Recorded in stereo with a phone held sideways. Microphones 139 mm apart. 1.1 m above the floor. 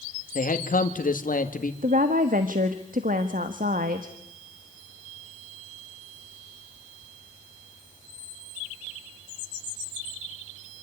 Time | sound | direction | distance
0.3 | a man speaking | 75° left (ahead or behind) | 2 m
1.8 | a woman speaking | 80° right | 1.4 m